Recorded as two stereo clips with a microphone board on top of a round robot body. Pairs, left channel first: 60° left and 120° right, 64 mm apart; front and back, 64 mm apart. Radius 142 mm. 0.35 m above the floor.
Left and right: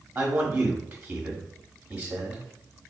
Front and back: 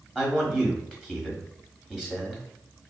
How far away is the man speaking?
About 1.5 m.